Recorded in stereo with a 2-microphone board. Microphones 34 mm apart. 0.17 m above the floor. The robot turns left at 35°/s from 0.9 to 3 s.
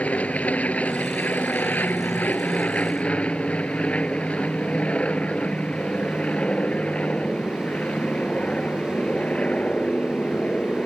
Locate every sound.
0.0 s an aircraft: 125° left; by 10.9 s 50° left